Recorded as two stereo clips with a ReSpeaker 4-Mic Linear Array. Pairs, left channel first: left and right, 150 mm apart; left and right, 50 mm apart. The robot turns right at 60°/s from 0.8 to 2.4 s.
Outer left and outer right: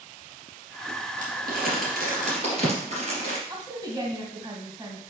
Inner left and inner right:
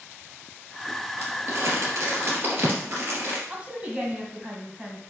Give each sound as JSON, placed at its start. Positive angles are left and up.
{"t": 1.2, "sound": "crumpling", "side_deg": -55, "distance_m": 2.5}
{"t": 3.5, "sound": "a woman speaking", "side_deg": -20, "distance_m": 1.6}